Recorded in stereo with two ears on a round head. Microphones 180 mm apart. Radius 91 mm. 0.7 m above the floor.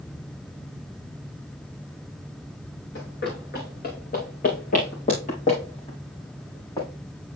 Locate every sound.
3.0 s running footsteps: 60° left (ahead or behind), 4.5 m; by 6.9 s 20° left (ahead or behind), 4.5 m